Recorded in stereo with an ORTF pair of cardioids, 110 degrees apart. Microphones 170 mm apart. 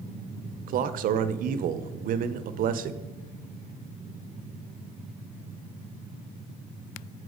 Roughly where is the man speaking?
Ahead right.